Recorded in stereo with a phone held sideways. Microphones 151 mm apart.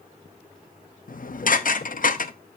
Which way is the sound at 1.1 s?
65° left (ahead or behind).